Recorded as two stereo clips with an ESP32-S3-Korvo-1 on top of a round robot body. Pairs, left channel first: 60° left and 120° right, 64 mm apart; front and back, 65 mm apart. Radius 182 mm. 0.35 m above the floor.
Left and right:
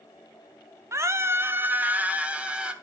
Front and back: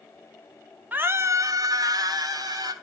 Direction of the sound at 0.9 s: 125° right.